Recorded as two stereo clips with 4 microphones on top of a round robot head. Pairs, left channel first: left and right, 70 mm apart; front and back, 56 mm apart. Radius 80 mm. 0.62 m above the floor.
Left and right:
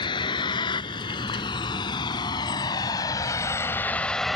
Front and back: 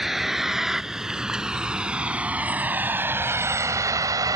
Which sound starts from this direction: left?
A vehicle, at 0.0 s.